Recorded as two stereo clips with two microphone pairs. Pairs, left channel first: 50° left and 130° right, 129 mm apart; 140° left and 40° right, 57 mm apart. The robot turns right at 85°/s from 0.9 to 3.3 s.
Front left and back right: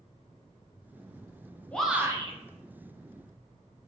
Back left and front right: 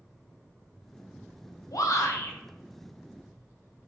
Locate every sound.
1.7 s a shout: 130° left, 0.5 m; by 2.4 s 175° right, 0.5 m